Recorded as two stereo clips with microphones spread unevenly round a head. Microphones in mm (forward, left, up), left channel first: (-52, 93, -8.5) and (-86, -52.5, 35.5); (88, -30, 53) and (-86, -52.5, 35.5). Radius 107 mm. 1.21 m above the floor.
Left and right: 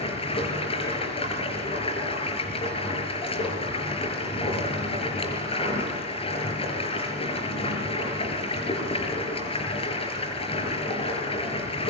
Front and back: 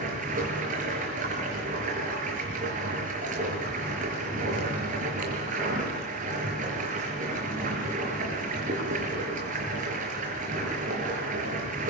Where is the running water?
130° left, 5.5 m.